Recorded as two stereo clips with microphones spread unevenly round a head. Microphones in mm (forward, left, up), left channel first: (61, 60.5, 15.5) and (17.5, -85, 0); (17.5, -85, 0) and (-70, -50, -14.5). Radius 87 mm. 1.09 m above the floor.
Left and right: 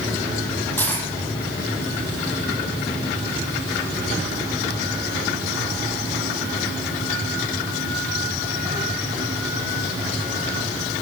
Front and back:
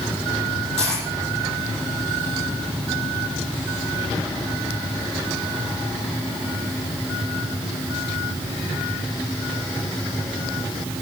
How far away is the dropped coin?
About 5.5 m.